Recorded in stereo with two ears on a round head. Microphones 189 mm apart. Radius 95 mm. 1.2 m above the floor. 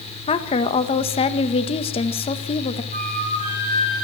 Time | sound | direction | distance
0.3 | a woman speaking | 30° left (ahead or behind) | 1.7 m
2.9 | a flute | 40° right (ahead or behind) | 6 m